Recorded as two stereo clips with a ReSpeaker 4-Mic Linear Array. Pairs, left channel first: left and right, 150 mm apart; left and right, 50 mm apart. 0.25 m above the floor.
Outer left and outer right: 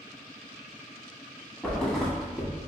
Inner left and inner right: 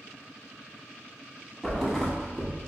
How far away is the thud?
About 0.7 m.